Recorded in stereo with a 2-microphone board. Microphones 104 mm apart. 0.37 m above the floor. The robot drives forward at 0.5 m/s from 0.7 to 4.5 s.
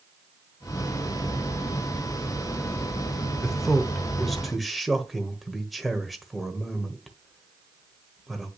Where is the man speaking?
Centre (ahead or behind), 0.9 m.